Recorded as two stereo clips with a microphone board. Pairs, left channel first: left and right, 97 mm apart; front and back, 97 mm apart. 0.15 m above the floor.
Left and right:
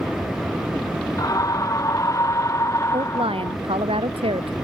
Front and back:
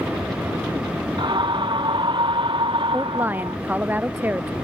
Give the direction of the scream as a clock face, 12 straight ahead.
7 o'clock.